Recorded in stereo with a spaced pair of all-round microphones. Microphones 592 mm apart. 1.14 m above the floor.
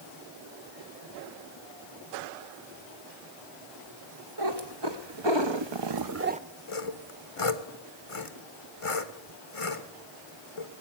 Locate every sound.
4.4 s a cat meowing: 40° right (ahead or behind), 1.8 m; by 6.4 s 10° right (ahead or behind), 0.5 m
6.7 s sawing: 60° left (ahead or behind), 1.3 m